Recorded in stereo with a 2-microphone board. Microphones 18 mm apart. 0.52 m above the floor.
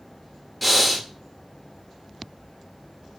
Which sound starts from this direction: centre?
Breathing, at 0.6 s.